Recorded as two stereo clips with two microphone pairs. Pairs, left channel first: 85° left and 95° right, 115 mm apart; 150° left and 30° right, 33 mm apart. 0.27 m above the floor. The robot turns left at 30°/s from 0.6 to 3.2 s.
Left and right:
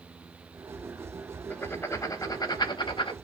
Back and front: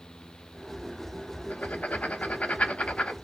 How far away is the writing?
About 0.6 m.